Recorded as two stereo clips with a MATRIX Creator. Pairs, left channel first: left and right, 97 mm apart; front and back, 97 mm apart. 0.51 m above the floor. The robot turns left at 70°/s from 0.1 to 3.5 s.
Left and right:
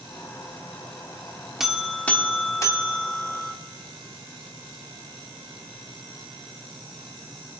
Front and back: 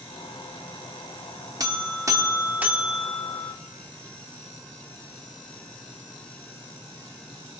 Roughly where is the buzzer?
Behind.